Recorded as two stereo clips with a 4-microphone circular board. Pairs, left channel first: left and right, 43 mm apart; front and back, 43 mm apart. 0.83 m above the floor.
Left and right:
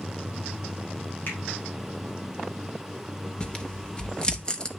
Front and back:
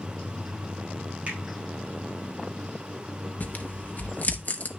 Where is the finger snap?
125° left, 4 m.